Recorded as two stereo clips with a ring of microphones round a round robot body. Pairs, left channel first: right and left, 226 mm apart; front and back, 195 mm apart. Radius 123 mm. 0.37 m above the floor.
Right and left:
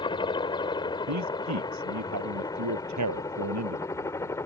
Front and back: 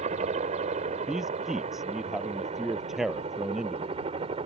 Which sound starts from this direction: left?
A man speaking, at 1.1 s.